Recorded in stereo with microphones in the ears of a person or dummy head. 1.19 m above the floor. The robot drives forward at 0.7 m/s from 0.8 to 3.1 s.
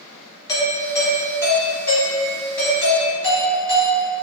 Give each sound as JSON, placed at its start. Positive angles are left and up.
{"t": 0.5, "sound": "a doorbell", "side_deg": 20, "distance_m": 0.8}